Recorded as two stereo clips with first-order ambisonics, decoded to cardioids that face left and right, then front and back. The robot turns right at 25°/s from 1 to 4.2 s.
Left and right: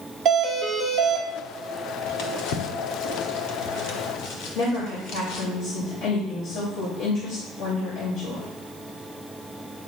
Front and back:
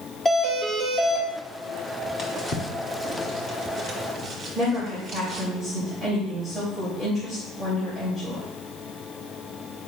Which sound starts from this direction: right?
A doorbell, at 0.2 s.